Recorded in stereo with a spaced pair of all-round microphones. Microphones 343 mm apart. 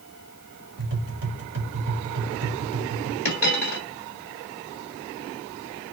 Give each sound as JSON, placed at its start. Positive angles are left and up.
{"t": 0.8, "sound": "tapping", "side_deg": -70, "distance_m": 1.3}
{"t": 3.2, "sound": "a dropped coin", "side_deg": 50, "distance_m": 2.0}